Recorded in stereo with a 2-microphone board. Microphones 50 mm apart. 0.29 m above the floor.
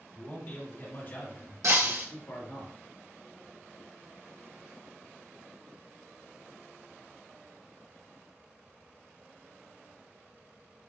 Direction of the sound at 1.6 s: 80° right.